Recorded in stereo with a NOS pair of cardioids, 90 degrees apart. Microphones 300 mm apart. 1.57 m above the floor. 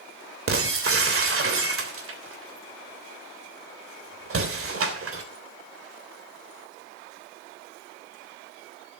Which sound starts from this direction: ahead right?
Breaking glass, at 0.5 s.